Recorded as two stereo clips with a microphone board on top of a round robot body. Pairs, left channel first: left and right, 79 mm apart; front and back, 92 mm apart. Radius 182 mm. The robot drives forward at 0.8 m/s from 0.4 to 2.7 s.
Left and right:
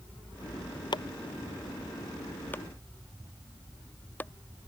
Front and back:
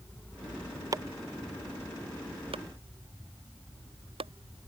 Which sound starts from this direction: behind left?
Chopping, at 0.9 s.